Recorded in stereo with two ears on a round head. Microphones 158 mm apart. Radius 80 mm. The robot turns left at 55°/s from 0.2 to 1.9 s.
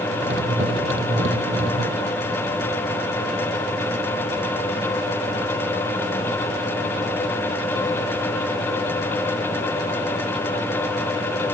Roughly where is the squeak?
No squeak in this recording.